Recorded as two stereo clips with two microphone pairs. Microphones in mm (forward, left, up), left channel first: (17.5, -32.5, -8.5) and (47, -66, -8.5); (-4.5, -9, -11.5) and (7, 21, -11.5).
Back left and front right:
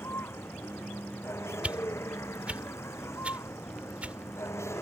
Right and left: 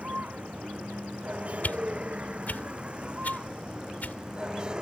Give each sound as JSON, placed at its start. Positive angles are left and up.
{"t": 0.0, "sound": "a vehicle", "azimuth_deg": 115}
{"t": 1.6, "sound": "a whoosh", "azimuth_deg": -100}